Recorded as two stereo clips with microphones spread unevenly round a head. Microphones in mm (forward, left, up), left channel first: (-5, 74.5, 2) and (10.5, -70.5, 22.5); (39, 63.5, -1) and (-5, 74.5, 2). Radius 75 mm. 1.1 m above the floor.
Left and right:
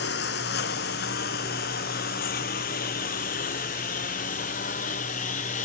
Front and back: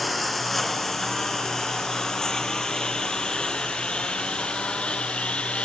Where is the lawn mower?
75° left; by 5.7 s 50° left.